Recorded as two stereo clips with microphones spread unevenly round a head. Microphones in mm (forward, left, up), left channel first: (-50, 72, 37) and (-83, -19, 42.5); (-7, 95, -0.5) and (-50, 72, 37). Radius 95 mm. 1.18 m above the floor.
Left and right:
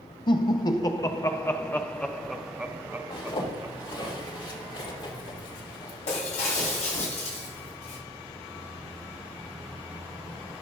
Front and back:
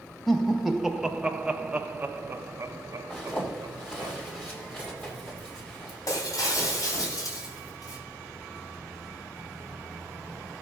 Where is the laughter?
110° left, 1.6 m; by 4.1 s 155° right, 1.4 m.